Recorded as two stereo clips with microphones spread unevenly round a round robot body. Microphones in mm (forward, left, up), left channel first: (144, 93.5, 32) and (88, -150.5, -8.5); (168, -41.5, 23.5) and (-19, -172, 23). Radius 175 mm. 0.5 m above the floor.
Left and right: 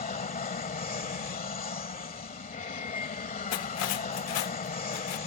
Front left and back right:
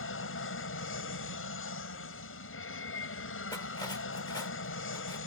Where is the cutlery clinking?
110° left.